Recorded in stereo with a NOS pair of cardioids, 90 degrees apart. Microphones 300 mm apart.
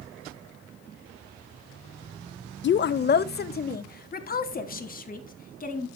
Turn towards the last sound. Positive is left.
turn(degrees=25)